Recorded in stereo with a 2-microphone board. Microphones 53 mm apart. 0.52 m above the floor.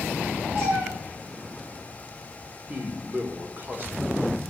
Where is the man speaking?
35° right (ahead or behind), 1.5 m.